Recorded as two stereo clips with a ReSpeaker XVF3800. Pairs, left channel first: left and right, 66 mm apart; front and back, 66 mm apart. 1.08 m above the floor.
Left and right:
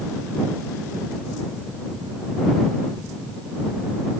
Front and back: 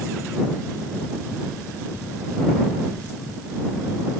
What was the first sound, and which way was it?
Only background noise.